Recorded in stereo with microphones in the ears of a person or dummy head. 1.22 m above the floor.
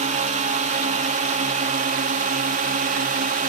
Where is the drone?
35° right (ahead or behind); by 3.5 s 40° right (ahead or behind).